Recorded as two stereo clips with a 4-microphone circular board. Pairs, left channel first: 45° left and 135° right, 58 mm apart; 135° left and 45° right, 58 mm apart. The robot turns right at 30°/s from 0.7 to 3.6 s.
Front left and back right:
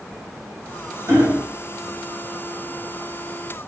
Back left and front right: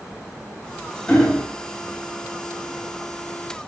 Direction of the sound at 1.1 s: 150° right.